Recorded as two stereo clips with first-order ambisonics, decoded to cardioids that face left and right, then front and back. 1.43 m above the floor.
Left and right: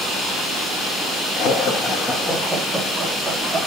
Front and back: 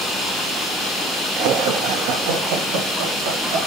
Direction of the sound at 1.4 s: 140° left.